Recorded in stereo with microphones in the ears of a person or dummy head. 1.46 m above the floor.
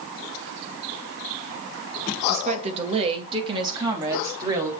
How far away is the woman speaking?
About 1.9 m.